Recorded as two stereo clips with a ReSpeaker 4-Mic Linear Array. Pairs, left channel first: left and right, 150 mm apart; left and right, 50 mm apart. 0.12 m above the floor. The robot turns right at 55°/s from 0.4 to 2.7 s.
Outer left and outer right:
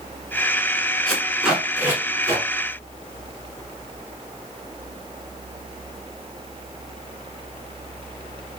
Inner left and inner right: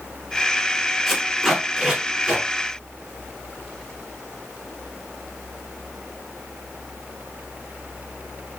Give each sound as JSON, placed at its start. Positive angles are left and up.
{"t": 1.1, "sound": "tape being pulled", "side_deg": 5, "distance_m": 1.0}